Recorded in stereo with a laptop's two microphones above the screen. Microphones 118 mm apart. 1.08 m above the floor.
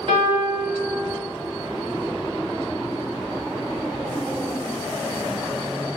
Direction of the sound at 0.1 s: 55° right (ahead or behind).